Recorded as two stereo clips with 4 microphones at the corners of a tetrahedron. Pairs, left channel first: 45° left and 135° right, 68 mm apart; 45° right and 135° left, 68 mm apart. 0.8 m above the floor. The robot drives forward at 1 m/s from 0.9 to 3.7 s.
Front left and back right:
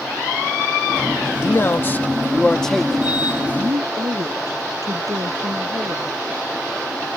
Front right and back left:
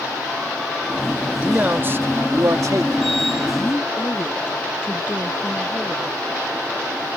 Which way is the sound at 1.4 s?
75° left.